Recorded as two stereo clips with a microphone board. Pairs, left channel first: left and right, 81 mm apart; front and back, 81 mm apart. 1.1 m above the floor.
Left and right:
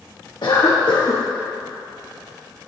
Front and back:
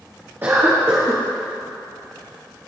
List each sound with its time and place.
0.4 s a cough: 120° left, 1.1 m